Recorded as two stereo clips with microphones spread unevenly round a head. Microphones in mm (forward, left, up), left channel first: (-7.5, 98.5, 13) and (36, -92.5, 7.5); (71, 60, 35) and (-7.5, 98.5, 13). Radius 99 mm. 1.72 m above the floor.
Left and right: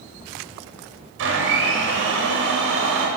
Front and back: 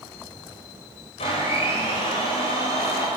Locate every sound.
1.2 s a blender: 50° right, 8 m